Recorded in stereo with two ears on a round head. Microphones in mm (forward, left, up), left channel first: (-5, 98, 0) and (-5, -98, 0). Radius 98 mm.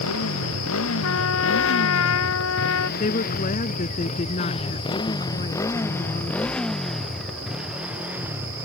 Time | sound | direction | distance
0.0 | a motorcycle | 75° left (ahead or behind) | ?
1.0 | a trumpet | 70° left (ahead or behind) | ?
3.0 | a woman speaking | 35° left (ahead or behind) | ?